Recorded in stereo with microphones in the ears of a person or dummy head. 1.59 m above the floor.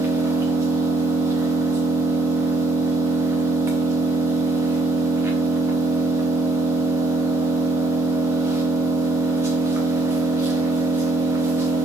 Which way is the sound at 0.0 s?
10° right (ahead or behind).